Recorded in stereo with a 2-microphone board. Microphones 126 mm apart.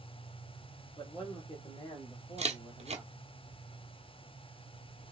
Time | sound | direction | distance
1.0 | a man speaking | 45° left (ahead or behind) | 1.9 m
2.4 | a camera shutter | 60° right (ahead or behind) | 0.9 m